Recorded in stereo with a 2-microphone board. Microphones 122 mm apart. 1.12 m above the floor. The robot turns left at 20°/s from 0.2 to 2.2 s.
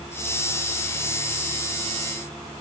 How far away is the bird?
I don't hear a bird.